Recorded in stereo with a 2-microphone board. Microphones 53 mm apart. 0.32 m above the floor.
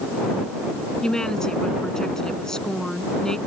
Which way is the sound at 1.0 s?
10° left (ahead or behind).